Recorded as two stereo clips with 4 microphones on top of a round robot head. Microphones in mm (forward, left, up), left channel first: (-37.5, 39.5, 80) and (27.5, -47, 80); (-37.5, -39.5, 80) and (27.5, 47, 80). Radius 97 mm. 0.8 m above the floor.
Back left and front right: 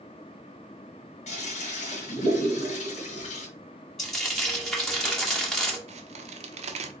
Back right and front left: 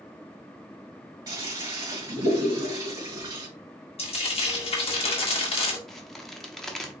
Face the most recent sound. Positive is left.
turn(degrees=-40)